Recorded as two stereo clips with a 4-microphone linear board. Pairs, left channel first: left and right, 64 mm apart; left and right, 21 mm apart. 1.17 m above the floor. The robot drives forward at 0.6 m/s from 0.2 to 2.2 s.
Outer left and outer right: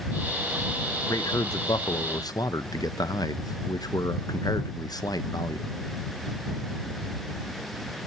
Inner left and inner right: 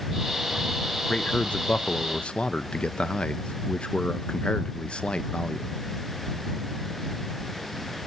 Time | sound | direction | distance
1.1 | a man speaking | 60° left (ahead or behind) | 1.0 m